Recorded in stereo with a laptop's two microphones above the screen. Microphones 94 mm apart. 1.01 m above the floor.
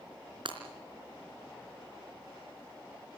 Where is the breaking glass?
60° right (ahead or behind), 3.5 m.